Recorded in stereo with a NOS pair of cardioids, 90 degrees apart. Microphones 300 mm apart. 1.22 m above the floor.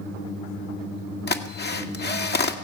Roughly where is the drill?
Ahead left.